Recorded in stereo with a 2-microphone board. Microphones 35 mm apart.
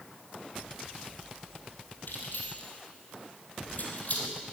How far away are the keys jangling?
About 3 m.